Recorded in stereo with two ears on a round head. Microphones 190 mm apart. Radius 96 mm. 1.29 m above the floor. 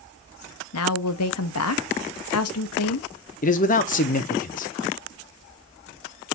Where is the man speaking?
40° left (ahead or behind), 0.6 m.